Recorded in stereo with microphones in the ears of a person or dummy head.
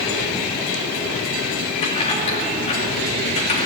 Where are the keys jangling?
35° left (ahead or behind), 2.5 m.